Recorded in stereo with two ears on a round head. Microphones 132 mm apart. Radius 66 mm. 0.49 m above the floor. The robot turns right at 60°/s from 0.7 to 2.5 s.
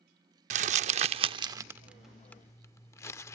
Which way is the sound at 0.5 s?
55° right (ahead or behind).